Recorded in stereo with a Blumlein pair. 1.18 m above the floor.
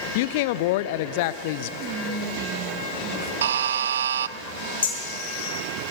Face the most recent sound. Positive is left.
turn(degrees=65)